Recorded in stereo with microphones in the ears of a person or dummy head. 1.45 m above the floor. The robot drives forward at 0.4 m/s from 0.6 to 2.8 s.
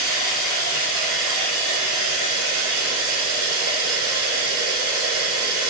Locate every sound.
0.0 s running water: 45° right (ahead or behind), 1.3 m; by 5.7 s 85° right, 0.9 m